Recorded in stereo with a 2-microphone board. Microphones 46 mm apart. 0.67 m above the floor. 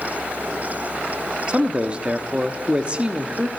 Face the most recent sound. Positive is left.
turn(degrees=-25)  # may be behind; listen again after turning